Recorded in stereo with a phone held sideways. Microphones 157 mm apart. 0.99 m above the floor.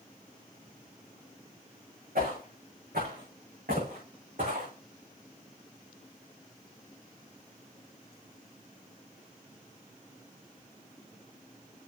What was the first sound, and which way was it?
Footsteps, 70° right (ahead or behind).